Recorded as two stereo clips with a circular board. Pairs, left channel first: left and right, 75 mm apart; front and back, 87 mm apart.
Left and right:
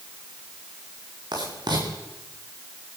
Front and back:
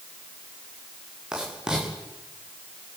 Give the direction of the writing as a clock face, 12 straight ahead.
3 o'clock.